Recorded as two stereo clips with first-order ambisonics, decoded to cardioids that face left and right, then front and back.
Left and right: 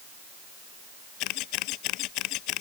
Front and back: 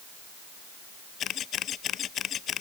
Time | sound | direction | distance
1.2 | a camera shutter | 60° left | ?